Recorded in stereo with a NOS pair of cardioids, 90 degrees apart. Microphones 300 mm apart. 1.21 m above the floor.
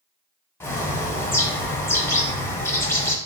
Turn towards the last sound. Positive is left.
turn(degrees=10)